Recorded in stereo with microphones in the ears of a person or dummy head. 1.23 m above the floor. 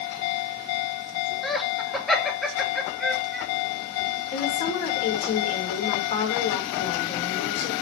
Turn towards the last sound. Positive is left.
turn(degrees=45)  # may be behind; listen again after turning